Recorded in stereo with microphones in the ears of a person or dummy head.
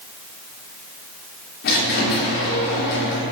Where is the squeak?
60° left (ahead or behind), 1.8 m.